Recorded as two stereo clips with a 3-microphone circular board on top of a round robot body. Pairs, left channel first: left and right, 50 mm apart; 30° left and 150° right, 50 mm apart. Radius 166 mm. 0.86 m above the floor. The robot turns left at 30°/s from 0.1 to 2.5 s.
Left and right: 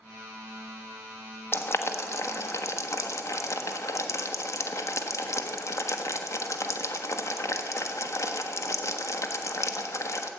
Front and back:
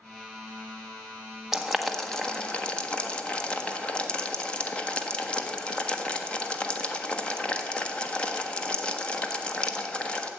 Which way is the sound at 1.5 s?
130° left.